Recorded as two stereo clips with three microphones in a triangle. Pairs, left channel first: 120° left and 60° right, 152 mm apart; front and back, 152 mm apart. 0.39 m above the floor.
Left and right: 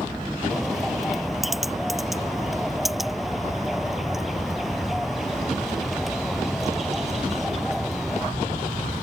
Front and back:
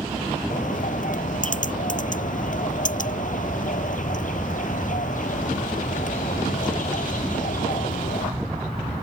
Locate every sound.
0.5 s a bird: 30° left